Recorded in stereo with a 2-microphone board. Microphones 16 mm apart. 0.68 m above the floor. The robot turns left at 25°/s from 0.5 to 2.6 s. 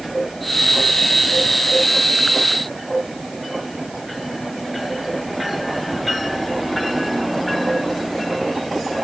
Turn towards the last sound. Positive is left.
No sound to turn to.